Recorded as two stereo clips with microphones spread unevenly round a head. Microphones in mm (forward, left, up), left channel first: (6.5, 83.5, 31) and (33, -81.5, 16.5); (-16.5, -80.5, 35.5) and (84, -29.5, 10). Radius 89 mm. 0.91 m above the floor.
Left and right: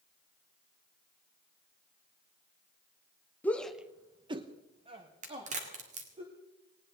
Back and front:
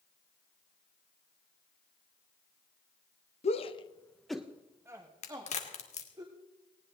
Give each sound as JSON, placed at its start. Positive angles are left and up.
{"t": 3.4, "sound": "a shout", "azimuth_deg": 180, "distance_m": 1.0}
{"t": 5.2, "sound": "a crack", "azimuth_deg": -130, "distance_m": 2.5}